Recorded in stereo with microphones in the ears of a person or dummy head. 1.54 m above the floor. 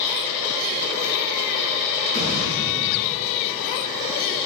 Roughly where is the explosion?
Left.